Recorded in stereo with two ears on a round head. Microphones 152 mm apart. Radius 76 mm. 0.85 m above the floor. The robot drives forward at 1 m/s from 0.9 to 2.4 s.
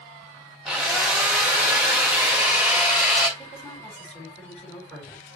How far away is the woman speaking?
About 5.5 m.